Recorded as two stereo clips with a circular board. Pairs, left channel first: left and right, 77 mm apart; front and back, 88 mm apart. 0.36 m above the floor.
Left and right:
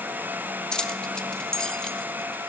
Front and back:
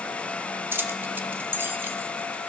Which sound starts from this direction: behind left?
Keys jangling, at 0.7 s.